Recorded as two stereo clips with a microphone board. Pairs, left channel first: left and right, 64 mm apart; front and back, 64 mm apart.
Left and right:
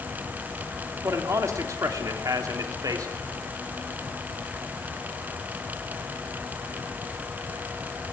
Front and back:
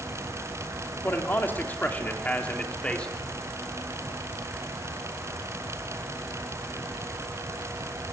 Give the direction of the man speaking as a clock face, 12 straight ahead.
2 o'clock.